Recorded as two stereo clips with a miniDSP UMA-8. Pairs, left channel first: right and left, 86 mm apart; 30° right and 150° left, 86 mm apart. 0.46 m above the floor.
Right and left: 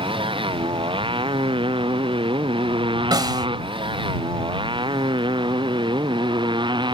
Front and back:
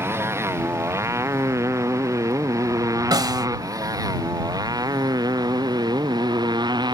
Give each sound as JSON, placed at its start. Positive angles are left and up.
{"t": 0.0, "sound": "a motorcycle", "azimuth_deg": 90}
{"t": 3.1, "sound": "a snare drum", "azimuth_deg": 120}